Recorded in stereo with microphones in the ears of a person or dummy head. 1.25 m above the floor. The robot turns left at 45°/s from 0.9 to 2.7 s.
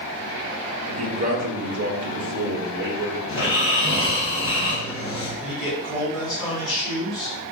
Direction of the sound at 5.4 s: Centre (ahead or behind).